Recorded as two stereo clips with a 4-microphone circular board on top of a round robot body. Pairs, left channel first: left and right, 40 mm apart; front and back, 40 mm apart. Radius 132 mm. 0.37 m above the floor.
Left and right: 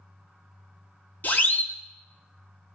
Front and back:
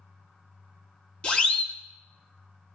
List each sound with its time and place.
1.2 s a siren: 60° left, 2.5 m